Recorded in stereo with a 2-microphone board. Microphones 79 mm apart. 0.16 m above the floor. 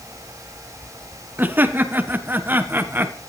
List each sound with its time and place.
1.4 s laughter: 25° right (ahead or behind), 1.7 m